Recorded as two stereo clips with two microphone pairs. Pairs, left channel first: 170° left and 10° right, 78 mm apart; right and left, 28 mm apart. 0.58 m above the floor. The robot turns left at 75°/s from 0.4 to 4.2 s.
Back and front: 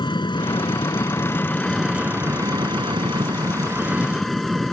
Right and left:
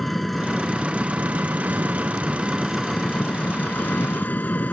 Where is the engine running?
175° right; by 4.7 s 100° right.